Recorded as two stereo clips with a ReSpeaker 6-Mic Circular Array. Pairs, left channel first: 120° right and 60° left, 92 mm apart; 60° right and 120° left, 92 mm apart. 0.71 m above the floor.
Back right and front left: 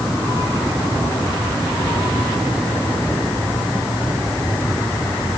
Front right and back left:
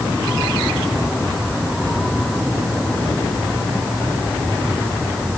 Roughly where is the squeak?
I don't hear a squeak.